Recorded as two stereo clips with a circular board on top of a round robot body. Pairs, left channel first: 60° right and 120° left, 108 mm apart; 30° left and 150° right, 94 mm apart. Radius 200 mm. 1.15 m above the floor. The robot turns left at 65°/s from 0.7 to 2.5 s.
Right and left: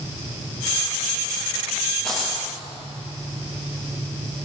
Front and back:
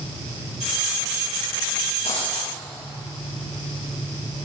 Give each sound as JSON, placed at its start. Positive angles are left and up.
{"t": 2.0, "sound": "a dropped coin", "azimuth_deg": 25, "distance_m": 9.0}